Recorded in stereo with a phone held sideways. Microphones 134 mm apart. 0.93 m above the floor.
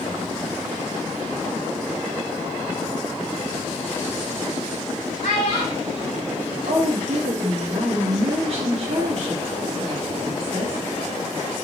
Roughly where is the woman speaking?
Right.